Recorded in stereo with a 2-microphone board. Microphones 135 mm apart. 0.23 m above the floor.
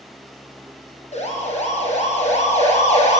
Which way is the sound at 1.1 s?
60° left (ahead or behind).